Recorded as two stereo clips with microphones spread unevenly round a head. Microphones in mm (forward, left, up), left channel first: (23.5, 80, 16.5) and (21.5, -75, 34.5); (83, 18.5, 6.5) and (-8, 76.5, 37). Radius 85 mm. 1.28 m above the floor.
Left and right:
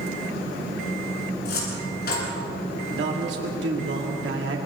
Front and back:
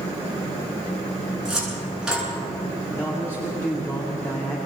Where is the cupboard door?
65° left, 9.5 m.